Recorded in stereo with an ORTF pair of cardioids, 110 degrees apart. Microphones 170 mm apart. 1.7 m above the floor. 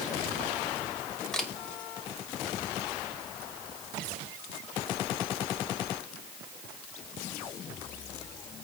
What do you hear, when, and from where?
1.3 s a camera shutter: 5° left, 2.0 m